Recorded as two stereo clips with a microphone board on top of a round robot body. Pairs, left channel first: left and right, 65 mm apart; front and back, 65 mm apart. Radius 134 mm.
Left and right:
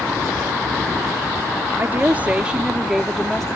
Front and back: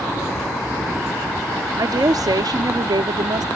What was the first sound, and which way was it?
A woman speaking, 150° right.